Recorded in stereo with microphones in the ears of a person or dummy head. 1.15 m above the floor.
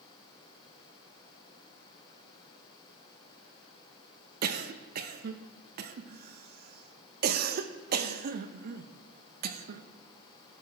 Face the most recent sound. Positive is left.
turn(degrees=-55)  # may be behind; listen again after turning